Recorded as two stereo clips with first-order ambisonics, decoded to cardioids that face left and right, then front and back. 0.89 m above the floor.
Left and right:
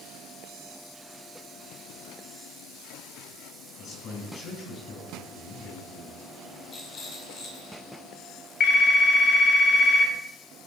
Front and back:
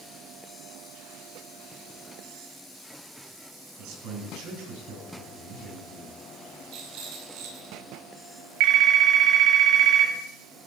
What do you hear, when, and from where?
3.8 s a man speaking: 155° left, 7.5 m
6.7 s a rattle: 155° left, 5 m
8.6 s a phone ringing: 150° left, 3 m